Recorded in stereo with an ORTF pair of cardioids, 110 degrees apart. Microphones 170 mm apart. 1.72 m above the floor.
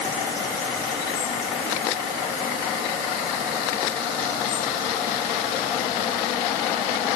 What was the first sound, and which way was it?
Only background noise.